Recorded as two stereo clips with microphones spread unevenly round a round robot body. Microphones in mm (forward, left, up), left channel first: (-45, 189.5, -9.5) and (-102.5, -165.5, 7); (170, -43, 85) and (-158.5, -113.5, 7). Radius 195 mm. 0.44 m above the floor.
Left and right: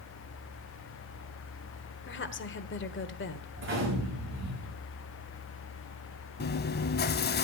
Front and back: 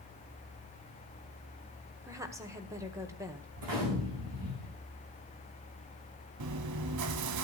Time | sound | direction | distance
2.0 | a woman speaking | 125° left | 1.4 m
3.6 | a gunshot | 155° right | 8.5 m
6.4 | chewing | 145° left | 0.7 m